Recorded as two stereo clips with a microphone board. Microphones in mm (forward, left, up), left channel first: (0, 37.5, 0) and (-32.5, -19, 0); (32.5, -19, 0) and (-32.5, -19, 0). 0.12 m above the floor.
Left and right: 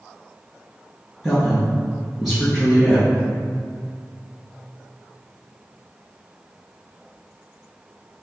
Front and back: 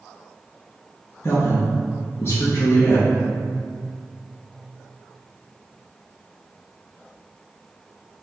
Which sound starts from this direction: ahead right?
A woman speaking, at 1.2 s.